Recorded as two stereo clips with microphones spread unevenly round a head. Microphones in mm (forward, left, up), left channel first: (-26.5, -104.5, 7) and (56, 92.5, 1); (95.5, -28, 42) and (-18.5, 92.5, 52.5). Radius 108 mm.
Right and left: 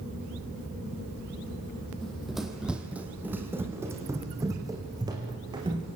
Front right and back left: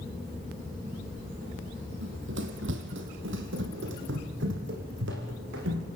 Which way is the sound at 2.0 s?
160° left.